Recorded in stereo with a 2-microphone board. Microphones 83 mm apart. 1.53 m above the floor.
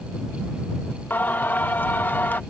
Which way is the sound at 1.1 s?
20° left (ahead or behind).